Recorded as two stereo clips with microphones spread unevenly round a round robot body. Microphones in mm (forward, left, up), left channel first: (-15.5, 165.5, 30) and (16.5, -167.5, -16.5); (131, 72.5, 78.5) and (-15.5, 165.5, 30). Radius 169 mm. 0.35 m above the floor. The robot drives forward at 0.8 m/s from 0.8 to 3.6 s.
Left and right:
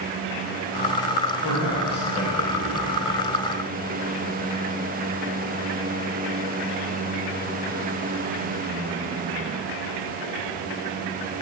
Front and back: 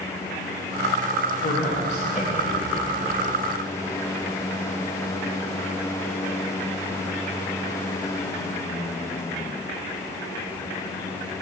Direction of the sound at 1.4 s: 15° left.